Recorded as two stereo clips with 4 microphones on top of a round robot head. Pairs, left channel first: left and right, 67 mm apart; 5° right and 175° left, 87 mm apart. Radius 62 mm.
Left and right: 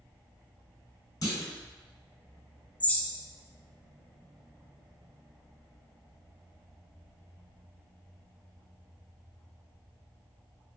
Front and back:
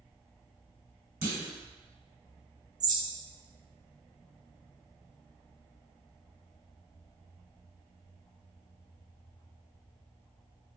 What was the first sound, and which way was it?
A clunk, 110° left.